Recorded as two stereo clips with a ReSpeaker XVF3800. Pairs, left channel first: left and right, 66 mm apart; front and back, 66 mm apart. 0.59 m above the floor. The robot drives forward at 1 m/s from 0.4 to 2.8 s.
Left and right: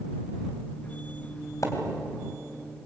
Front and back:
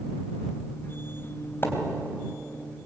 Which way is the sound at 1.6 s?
55° left.